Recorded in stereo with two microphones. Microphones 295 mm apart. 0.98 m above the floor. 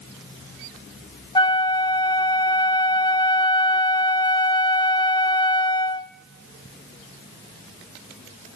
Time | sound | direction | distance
1.4 | a flute | 15° left (ahead or behind) | 0.6 m